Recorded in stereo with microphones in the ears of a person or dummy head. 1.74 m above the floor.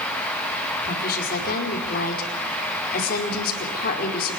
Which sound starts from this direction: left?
A woman speaking, at 0.8 s.